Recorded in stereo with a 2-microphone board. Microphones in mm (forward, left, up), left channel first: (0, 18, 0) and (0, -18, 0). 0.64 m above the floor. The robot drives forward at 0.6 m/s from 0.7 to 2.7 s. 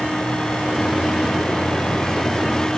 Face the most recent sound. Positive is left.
No sound to turn to.